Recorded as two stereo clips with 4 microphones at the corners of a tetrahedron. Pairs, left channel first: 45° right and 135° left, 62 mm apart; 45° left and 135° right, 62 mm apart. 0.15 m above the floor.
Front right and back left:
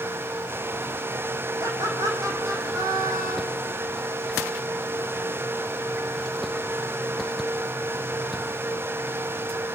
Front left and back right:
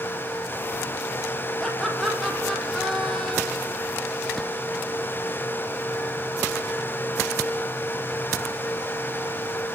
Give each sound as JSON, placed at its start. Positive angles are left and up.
{"t": 1.6, "sound": "laughter", "azimuth_deg": 130, "distance_m": 7.5}